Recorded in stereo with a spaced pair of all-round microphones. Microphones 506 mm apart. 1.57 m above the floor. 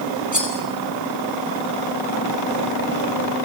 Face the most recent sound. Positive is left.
turn(degrees=35)  # may be behind; listen again after turning